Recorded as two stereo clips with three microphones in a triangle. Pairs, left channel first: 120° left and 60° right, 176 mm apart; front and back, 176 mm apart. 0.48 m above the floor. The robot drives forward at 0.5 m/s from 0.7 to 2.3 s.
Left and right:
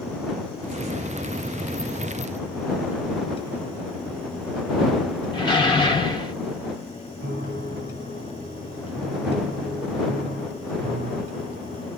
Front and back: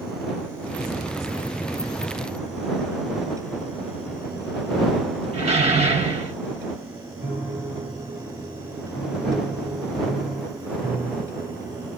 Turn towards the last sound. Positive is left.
turn(degrees=-105)